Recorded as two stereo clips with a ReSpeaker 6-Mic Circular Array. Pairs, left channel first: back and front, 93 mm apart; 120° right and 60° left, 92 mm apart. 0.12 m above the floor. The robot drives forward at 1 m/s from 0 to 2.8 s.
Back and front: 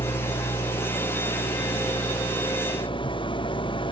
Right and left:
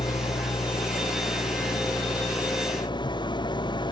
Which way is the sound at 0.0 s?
145° right.